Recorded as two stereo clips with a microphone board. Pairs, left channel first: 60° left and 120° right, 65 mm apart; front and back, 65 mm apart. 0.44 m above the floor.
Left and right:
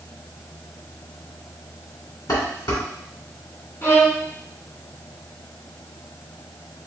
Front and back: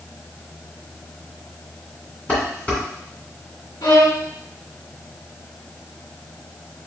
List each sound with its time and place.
2.3 s dishes clattering: 70° left, 2.5 m
3.8 s a violin: 5° left, 1.3 m